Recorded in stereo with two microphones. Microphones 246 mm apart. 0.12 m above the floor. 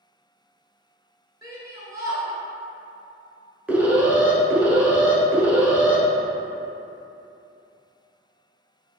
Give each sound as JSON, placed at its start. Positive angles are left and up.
{"t": 1.4, "sound": "a shout", "side_deg": -15, "distance_m": 1.4}
{"t": 3.7, "sound": "an alarm", "side_deg": -5, "distance_m": 0.9}